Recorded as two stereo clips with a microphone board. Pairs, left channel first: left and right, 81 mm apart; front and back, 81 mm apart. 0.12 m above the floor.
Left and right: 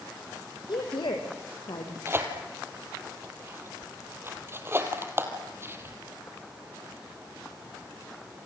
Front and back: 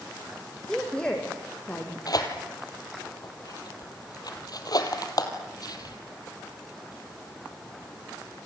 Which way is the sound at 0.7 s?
80° left.